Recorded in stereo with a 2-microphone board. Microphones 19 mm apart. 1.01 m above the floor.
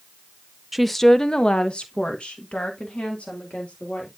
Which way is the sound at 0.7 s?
Centre (ahead or behind).